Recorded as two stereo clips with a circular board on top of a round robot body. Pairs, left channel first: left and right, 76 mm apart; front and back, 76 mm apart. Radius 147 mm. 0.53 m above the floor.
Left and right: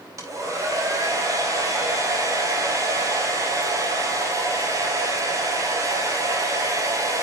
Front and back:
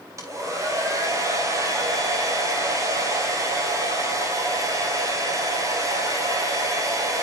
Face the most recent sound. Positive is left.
turn(degrees=-135)